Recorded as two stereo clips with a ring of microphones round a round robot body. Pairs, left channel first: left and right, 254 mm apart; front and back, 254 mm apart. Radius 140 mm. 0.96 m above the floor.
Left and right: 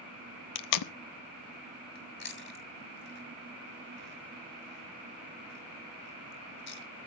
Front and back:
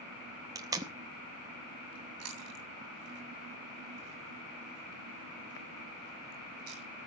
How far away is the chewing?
About 2.5 m.